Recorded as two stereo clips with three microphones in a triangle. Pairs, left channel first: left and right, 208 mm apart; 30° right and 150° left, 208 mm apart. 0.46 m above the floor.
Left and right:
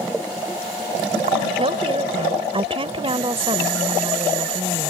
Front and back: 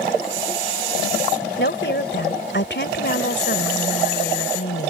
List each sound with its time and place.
1.6 s a woman speaking: 30° right